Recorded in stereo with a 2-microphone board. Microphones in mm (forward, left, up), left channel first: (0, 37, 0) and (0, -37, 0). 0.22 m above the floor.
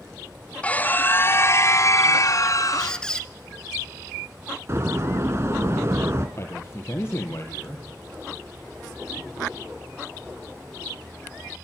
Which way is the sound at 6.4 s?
35° left (ahead or behind).